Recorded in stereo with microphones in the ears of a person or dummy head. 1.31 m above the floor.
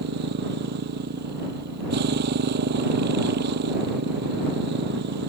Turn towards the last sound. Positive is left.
turn(degrees=-50)  # may be behind; listen again after turning